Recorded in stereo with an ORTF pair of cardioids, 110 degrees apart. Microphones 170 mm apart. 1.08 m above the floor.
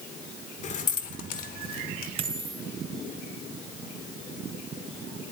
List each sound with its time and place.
0.6 s keys jangling: 45° left, 2 m; by 2.1 s 65° left, 2.5 m
2.2 s a dropped coin: 35° right, 3 m